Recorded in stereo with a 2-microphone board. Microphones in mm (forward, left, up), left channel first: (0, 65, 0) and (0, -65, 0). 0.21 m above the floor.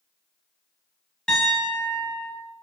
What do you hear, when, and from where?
1.3 s a piano: 5° left (ahead or behind), 1.0 m